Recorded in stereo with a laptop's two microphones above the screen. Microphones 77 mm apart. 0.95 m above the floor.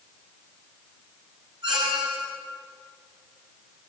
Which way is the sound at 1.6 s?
75° right (ahead or behind).